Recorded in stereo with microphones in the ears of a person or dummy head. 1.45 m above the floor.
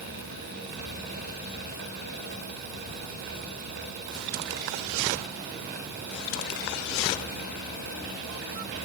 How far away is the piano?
I don't hear a piano.